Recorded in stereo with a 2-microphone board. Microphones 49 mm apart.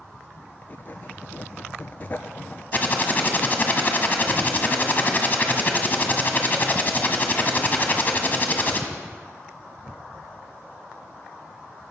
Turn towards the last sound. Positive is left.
turn(degrees=35)  # may be behind; listen again after turning